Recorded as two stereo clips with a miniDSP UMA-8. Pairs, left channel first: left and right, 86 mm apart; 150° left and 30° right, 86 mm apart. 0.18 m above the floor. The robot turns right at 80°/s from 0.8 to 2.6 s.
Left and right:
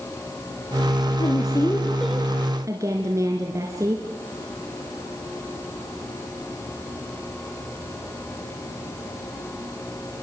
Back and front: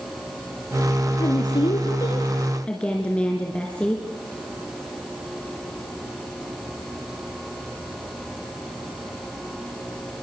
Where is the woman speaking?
110° left, 2.5 m; by 4.0 s 135° right, 2.5 m.